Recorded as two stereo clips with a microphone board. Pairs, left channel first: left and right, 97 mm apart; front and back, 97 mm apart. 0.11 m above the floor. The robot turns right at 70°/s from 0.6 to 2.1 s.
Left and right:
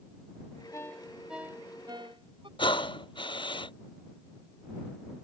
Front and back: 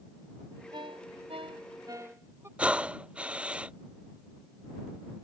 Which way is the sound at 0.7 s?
150° left.